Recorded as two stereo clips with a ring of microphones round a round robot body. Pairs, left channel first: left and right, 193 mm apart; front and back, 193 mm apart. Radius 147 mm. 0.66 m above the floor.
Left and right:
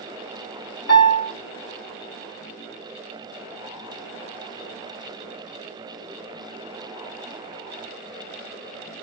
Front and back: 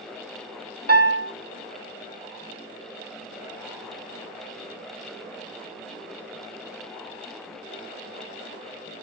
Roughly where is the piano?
Behind left.